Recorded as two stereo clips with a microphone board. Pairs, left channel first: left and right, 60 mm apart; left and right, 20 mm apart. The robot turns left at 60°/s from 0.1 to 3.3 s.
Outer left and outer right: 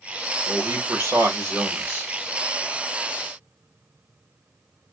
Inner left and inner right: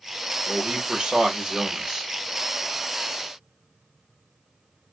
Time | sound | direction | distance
0.5 | a man speaking | 60° right | 1.4 m